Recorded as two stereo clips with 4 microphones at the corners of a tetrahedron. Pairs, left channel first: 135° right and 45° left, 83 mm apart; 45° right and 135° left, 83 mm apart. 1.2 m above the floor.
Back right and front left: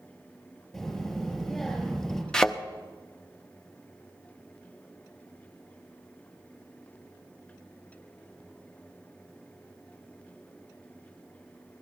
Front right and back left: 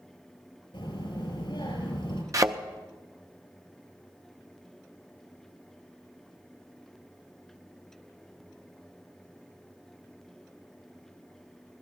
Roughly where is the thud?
Behind left.